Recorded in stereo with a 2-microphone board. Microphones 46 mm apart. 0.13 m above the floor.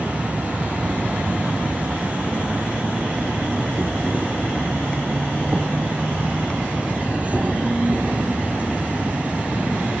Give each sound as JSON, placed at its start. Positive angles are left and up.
{"t": 0.0, "sound": "an insect", "side_deg": -30, "distance_m": 1.0}